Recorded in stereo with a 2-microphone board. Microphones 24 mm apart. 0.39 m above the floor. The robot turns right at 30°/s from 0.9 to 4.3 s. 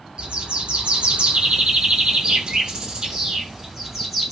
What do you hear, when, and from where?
0.2 s a bird: 110° right, 1.7 m; by 4.3 s 10° right, 1.7 m